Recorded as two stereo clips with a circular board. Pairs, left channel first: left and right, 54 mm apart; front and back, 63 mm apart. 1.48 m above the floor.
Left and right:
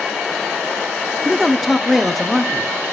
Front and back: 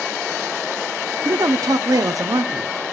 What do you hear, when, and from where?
1.2 s a man speaking: straight behind, 0.8 m